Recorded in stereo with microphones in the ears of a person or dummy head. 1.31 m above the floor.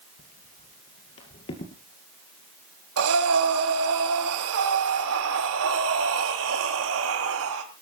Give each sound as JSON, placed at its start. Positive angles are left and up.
{"t": 0.2, "sound": "footsteps", "side_deg": 40, "distance_m": 1.8}
{"t": 3.0, "sound": "breathing", "side_deg": -80, "distance_m": 3.5}